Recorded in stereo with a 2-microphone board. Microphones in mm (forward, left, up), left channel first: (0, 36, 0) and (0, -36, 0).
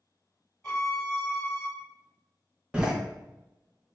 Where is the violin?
20° left (ahead or behind), 1.3 m.